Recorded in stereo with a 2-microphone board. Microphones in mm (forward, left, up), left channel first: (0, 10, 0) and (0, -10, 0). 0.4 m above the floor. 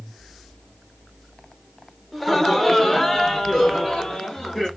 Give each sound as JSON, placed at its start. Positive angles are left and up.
{"t": 2.1, "sound": "laughter", "side_deg": 5, "distance_m": 1.0}